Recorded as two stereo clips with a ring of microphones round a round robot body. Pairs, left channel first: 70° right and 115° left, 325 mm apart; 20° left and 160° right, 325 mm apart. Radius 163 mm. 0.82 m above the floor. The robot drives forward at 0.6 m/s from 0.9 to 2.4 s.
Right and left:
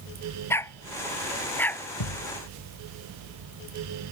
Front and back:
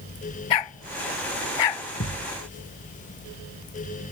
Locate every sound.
0.5 s a dog barking: 15° left; by 1.8 s 20° left
2.0 s a thud: 40° right